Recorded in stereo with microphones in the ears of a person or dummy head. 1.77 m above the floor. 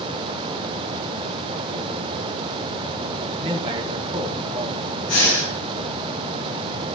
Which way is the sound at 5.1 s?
70° left (ahead or behind).